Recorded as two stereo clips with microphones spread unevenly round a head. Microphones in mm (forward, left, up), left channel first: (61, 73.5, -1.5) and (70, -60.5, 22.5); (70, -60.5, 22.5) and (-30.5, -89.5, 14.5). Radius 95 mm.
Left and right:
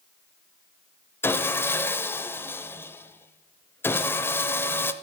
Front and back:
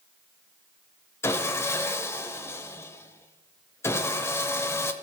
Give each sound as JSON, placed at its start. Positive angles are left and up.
{"t": 1.2, "sound": "sawing", "azimuth_deg": 15, "distance_m": 0.9}